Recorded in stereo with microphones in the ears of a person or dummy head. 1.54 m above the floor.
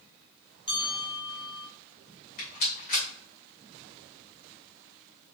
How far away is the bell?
About 1.5 m.